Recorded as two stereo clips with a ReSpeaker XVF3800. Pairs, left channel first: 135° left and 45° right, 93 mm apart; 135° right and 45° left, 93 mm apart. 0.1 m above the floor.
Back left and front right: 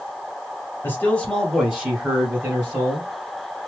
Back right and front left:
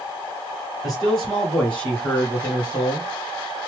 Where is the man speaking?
140° left, 1.7 m; by 3.1 s 70° right, 2 m.